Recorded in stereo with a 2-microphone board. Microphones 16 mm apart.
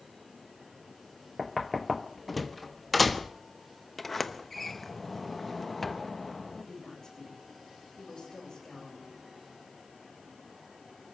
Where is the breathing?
No breathing in this recording.